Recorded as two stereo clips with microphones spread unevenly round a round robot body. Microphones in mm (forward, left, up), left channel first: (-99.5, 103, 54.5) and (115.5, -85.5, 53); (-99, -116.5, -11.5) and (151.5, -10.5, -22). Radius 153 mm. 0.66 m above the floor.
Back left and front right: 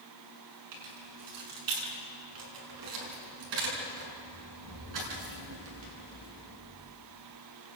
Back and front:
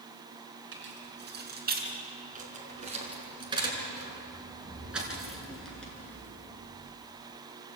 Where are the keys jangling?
25° right, 7 m; by 6.7 s 75° right, 7.5 m.